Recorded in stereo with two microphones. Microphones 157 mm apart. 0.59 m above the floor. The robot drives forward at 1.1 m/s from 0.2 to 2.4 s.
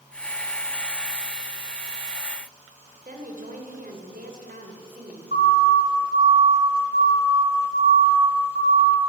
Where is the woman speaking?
65° right (ahead or behind), 2.5 m.